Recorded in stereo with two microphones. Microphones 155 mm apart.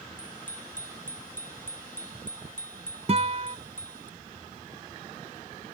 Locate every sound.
0.2 s a bicycle bell: 60° left (ahead or behind); by 4.1 s 55° left (ahead or behind)
3.1 s a guitar: 45° right (ahead or behind)